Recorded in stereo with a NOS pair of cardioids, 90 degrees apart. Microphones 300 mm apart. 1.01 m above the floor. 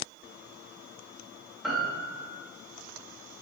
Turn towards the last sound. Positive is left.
turn(degrees=0)